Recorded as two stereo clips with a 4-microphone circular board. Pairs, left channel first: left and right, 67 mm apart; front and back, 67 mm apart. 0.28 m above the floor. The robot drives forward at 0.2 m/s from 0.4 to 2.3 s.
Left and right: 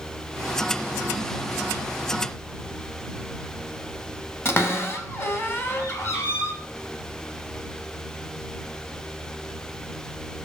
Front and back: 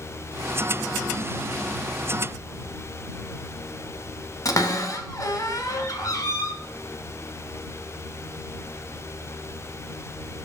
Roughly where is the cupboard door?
Ahead left.